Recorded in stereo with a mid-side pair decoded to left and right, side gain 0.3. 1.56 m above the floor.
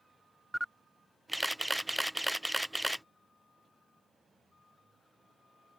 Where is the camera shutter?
5° left.